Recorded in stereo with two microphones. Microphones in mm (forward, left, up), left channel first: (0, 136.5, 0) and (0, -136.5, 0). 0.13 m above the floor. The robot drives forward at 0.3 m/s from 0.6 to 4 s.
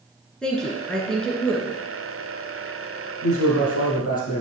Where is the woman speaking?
5° left (ahead or behind), 1.8 m.